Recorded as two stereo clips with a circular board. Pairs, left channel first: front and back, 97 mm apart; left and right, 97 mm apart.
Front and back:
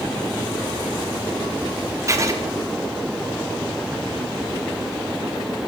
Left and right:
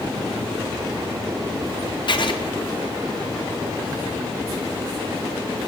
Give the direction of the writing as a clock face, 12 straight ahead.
8 o'clock.